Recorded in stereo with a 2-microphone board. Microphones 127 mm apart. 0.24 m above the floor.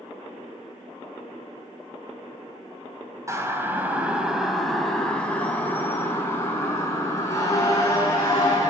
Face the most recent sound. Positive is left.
turn(degrees=30)  # may be behind; listen again after turning